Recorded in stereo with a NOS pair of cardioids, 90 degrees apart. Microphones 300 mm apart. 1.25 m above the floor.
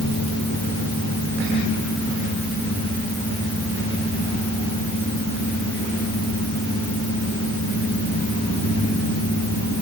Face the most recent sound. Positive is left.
No sound to turn to.